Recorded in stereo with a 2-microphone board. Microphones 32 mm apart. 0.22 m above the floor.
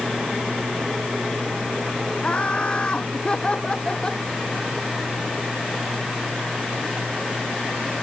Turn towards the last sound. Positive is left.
turn(degrees=25)  # may be behind; listen again after turning